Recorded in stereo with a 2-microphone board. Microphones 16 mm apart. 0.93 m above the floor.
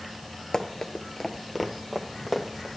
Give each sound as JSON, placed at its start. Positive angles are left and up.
{"t": 0.5, "sound": "running footsteps", "side_deg": 35, "distance_m": 1.0}